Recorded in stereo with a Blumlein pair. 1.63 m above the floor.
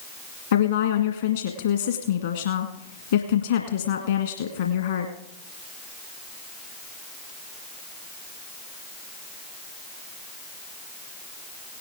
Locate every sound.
0.5 s a woman speaking: 65° left, 1.8 m